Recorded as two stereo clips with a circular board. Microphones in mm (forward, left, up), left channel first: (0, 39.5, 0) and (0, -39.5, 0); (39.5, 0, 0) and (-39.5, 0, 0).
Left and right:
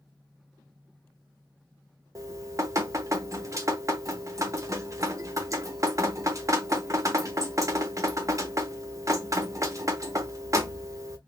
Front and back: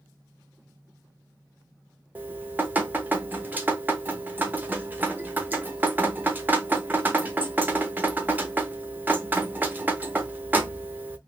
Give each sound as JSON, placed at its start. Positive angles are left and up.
{"t": 2.1, "sound": "dripping", "azimuth_deg": -120, "distance_m": 0.7}